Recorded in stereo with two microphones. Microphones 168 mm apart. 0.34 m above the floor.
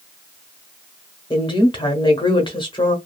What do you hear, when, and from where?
1.3 s a woman speaking: 25° left (ahead or behind), 1.0 m